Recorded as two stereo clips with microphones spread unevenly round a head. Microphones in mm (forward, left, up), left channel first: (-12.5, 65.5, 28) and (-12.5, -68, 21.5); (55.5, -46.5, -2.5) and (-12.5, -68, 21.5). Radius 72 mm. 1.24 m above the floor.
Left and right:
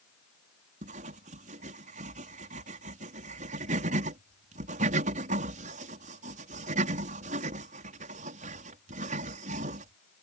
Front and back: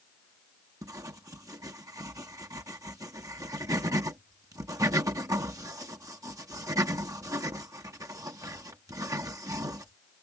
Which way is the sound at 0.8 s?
120° right.